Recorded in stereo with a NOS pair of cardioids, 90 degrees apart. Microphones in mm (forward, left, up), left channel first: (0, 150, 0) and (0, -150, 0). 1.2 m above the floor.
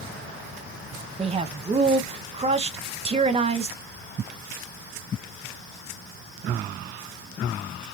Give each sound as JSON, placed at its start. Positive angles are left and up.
{"t": 1.2, "sound": "a man speaking", "azimuth_deg": -20, "distance_m": 0.8}